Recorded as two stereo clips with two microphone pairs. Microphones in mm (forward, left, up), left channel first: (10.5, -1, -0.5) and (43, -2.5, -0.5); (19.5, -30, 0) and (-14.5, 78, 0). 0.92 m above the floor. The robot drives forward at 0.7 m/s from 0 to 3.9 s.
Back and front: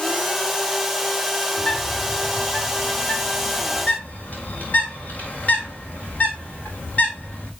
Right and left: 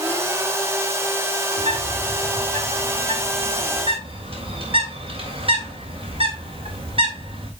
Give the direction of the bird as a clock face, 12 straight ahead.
8 o'clock.